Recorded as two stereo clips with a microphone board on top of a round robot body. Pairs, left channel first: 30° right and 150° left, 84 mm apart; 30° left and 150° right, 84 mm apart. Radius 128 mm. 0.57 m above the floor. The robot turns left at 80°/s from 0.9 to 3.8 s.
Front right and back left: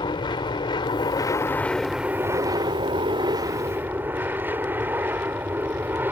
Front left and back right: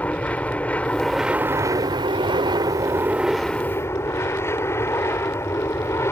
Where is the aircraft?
45° right; by 6.1 s 85° left.